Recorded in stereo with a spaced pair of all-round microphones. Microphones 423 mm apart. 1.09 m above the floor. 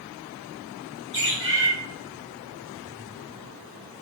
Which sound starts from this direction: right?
A bird, at 1.1 s.